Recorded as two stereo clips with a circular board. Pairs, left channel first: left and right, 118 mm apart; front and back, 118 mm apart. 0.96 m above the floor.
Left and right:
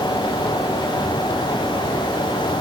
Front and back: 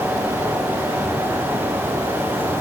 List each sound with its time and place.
Only background noise.